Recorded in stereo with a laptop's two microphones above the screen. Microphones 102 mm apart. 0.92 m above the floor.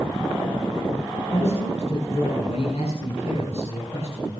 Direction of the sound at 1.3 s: 85° left.